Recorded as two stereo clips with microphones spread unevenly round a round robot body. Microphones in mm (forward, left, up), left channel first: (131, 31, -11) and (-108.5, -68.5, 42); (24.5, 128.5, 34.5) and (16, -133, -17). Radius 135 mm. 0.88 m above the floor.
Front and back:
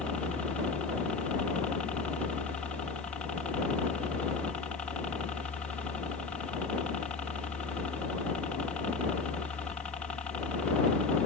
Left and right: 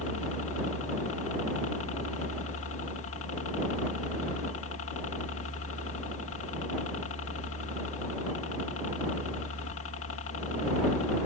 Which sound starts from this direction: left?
A helicopter, at 0.0 s.